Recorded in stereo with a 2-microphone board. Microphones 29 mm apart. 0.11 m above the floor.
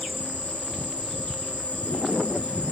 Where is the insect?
50° left (ahead or behind), 2.5 m.